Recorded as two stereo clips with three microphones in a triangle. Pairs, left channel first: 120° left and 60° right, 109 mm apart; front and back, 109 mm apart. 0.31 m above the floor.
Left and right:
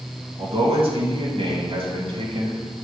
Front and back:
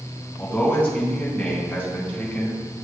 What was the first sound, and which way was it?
A man speaking, 75° right.